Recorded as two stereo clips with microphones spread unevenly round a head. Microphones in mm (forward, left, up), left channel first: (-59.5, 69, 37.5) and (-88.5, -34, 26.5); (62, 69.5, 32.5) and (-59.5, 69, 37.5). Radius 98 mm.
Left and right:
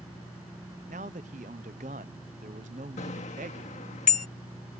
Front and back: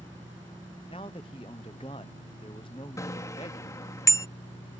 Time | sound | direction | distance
0.9 | a man speaking | 65° right | ?
3.0 | a bicycle bell | 65° left | ?